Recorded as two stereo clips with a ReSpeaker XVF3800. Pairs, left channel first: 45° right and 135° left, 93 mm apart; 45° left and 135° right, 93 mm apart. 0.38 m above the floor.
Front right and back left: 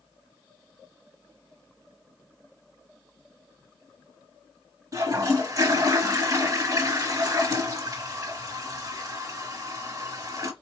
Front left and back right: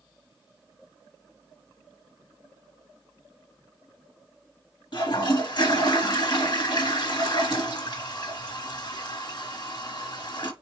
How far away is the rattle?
I don't hear a rattle.